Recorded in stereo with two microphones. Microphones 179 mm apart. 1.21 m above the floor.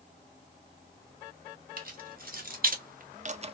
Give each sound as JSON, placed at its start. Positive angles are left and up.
{"t": 1.8, "sound": "keys jangling", "side_deg": -55, "distance_m": 1.3}